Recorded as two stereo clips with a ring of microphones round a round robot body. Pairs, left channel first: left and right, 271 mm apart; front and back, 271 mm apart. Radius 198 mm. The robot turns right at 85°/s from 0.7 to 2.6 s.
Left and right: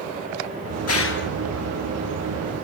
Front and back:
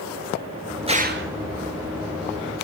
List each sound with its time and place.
0.9 s a gunshot: 110° left, 3.5 m; by 1.3 s 150° left, 3.5 m